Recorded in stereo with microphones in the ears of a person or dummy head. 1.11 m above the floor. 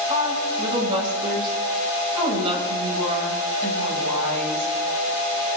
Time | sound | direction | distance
0.1 | a woman speaking | 30° right (ahead or behind) | 5.5 m